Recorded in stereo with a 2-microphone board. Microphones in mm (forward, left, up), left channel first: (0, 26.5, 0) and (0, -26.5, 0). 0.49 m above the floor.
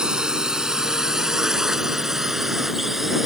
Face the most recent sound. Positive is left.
turn(degrees=-5)  # may be behind; listen again after turning